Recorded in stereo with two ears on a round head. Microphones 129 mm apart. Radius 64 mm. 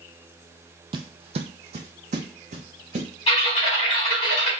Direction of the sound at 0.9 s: 35° right (ahead or behind).